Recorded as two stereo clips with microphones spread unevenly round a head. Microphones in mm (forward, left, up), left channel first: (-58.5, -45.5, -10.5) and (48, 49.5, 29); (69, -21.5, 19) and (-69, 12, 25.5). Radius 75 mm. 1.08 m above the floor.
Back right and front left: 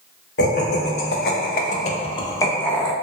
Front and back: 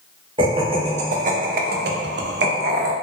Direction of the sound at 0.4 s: 135° right.